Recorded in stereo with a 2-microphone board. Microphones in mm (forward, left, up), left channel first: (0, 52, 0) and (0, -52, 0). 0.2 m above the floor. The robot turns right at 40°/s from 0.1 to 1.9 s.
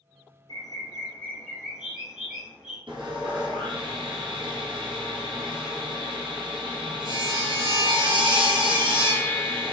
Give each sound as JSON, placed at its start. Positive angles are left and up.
{"t": 0.5, "sound": "a bird", "azimuth_deg": 135, "distance_m": 0.9}
{"t": 2.9, "sound": "sawing", "side_deg": -60, "distance_m": 0.6}